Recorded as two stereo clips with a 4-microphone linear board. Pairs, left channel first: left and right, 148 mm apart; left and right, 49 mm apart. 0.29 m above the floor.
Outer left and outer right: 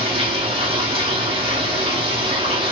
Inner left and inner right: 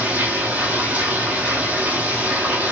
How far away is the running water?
About 1.8 m.